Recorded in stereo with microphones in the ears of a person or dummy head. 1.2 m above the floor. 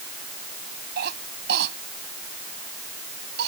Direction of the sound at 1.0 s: 60° right (ahead or behind).